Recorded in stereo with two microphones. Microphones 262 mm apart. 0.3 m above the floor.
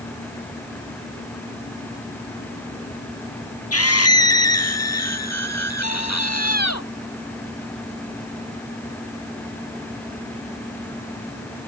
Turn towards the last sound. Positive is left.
turn(degrees=85)